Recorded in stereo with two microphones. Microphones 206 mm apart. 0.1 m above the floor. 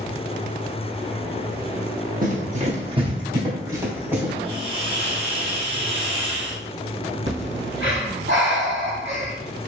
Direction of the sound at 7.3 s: 70° right (ahead or behind).